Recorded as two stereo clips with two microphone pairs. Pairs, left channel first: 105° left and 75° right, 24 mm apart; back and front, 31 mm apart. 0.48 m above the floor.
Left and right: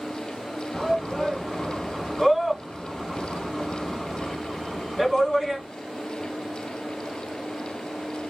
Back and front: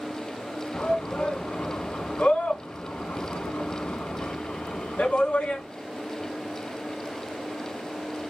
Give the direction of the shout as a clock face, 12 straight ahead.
6 o'clock.